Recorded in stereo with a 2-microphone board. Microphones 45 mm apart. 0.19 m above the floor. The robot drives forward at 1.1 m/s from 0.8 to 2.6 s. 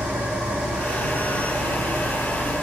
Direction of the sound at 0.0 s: 80° right.